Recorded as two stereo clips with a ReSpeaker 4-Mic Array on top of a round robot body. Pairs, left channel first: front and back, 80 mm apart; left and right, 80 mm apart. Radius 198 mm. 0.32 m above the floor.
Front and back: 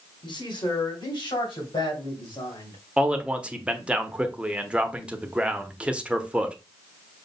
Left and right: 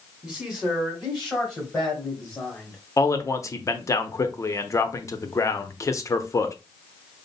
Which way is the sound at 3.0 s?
110° left.